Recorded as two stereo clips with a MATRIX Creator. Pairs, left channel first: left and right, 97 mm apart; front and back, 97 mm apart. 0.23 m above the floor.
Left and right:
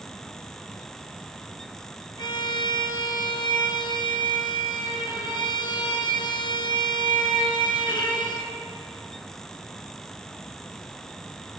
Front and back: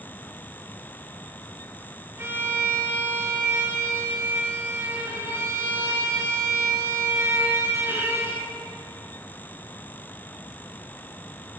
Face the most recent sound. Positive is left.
turn(degrees=120)